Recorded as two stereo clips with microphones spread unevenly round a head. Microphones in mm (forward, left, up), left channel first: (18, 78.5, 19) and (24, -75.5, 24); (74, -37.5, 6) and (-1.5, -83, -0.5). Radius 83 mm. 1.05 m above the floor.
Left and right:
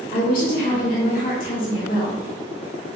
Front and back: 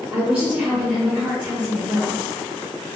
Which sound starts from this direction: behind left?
A woman speaking, at 0.1 s.